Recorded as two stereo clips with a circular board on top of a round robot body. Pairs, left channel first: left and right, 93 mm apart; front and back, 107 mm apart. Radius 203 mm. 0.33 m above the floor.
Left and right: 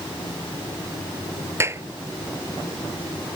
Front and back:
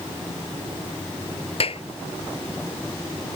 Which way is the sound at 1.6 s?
30° right.